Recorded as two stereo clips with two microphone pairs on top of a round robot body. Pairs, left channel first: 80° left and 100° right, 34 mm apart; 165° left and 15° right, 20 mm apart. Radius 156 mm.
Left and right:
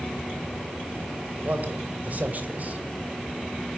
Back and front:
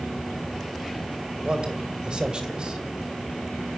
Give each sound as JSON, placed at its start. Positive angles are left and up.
{"t": 1.4, "sound": "a man speaking", "azimuth_deg": -55, "distance_m": 2.5}